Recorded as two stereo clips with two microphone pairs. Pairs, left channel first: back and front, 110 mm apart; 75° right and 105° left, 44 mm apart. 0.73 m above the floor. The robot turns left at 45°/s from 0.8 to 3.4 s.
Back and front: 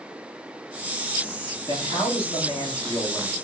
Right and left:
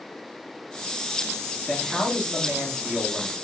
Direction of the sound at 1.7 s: 170° right.